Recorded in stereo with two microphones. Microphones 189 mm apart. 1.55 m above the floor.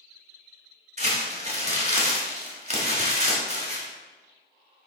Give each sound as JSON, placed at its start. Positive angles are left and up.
{"t": 1.0, "sound": "crumpling", "side_deg": -40, "distance_m": 1.5}